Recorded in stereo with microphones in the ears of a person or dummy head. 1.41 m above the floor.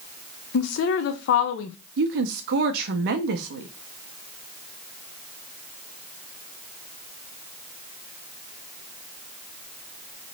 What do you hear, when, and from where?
0.5 s a woman speaking: 75° left (ahead or behind), 0.7 m
2.0 s a woman speaking: 55° right (ahead or behind), 0.6 m